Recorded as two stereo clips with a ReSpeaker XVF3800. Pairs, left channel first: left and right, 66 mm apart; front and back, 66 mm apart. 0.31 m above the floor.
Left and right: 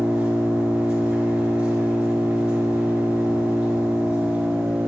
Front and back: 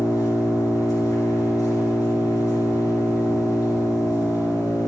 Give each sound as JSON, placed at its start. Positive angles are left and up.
{"t": 0.0, "sound": "an engine running", "azimuth_deg": -15, "distance_m": 3.5}